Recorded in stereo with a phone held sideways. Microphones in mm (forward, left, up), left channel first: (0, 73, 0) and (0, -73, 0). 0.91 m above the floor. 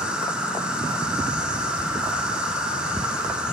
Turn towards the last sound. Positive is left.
turn(degrees=-5)  # may be behind; listen again after turning